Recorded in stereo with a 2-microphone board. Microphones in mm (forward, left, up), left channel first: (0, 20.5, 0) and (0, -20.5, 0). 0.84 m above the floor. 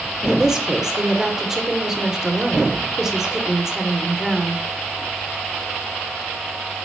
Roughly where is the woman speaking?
Centre.